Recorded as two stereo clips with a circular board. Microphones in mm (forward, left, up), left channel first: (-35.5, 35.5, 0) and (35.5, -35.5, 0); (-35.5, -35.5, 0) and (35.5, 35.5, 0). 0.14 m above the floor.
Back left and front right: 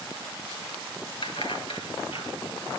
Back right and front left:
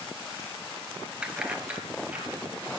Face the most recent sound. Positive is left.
turn(degrees=120)